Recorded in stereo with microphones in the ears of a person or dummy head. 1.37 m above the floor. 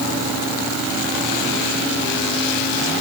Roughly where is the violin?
I don't hear a violin.